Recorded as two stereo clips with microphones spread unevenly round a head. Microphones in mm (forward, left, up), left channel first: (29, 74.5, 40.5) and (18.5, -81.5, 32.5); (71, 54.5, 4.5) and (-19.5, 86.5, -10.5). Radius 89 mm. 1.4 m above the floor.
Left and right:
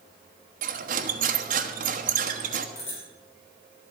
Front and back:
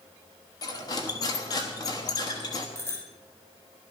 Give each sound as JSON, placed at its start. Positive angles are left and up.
{"t": 0.6, "sound": "cutlery clinking", "azimuth_deg": -65, "distance_m": 1.2}
{"t": 2.8, "sound": "a bicycle bell", "azimuth_deg": 40, "distance_m": 8.5}